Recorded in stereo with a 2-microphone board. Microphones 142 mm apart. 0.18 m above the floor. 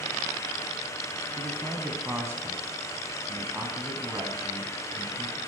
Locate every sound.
1.4 s a man speaking: 15° right (ahead or behind), 1.1 m